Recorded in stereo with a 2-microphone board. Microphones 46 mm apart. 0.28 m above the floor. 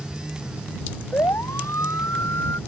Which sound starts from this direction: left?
A siren, at 1.1 s.